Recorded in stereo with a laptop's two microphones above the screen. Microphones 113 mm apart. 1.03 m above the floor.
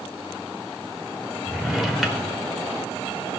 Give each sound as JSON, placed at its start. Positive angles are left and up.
{"t": 1.5, "sound": "a drawer", "side_deg": 0, "distance_m": 1.9}